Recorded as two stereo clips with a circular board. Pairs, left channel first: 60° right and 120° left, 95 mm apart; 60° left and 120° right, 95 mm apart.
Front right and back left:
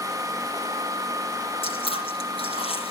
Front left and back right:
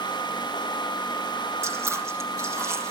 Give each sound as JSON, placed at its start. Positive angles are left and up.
{"t": 1.6, "sound": "chewing", "azimuth_deg": -55, "distance_m": 3.5}